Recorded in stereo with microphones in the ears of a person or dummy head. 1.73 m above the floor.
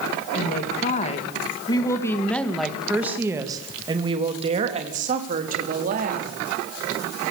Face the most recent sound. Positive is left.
turn(degrees=-45)  # may be behind; listen again after turning